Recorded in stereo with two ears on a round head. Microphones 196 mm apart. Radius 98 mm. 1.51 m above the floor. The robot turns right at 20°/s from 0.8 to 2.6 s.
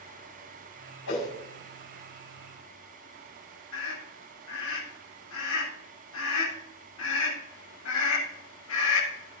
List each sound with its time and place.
1.1 s a whoosh: 80° left, 5.5 m; by 1.3 s 85° left, 5.5 m
3.7 s a scream: 70° left (ahead or behind), 7.5 m